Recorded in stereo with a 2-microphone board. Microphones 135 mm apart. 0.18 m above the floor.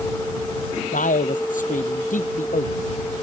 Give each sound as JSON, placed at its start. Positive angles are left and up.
{"t": 0.9, "sound": "a man speaking", "side_deg": 70}